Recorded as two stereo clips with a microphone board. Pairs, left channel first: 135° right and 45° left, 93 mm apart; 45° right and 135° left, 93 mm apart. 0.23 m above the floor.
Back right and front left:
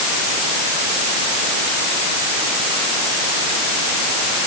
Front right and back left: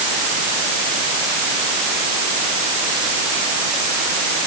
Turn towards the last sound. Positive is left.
No sound to turn to.